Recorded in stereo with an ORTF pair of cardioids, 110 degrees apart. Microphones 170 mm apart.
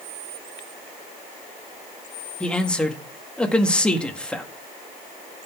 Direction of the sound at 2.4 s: 5° left.